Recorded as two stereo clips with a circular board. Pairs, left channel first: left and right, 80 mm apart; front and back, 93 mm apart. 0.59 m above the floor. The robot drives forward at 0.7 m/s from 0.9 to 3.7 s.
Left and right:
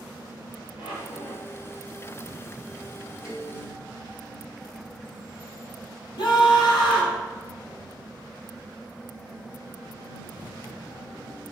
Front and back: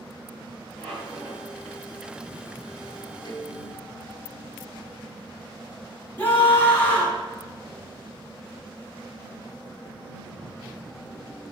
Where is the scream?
70° left, 5.5 m.